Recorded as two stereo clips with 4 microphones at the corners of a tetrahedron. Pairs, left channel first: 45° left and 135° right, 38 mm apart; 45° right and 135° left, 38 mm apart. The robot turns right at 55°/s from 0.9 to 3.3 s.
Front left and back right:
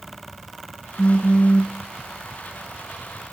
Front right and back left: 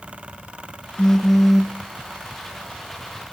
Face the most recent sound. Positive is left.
turn(degrees=140)